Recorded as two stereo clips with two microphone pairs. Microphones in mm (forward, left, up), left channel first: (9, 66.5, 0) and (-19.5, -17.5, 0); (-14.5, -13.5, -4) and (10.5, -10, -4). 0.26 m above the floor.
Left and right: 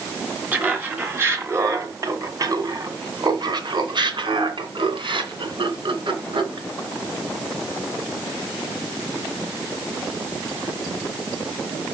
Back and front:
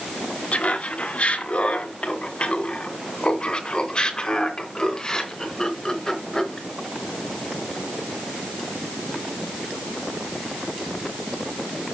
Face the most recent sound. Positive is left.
turn(degrees=-100)